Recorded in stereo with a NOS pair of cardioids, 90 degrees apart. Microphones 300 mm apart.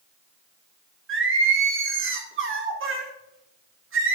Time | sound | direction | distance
1.1 | singing | 45° right | 1.3 m